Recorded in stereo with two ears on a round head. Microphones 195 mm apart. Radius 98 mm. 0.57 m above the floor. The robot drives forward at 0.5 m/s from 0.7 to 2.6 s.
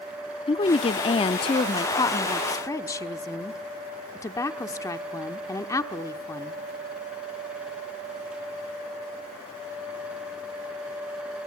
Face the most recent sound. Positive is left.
turn(degrees=15)  # may be behind; listen again after turning